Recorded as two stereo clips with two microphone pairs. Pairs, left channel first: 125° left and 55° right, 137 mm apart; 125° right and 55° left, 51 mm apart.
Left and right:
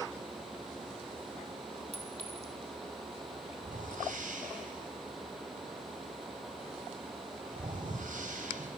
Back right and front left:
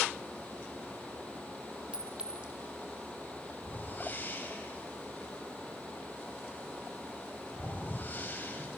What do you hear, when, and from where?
1.9 s a clink: 15° right, 1.7 m
3.6 s a whoosh: 75° right, 4 m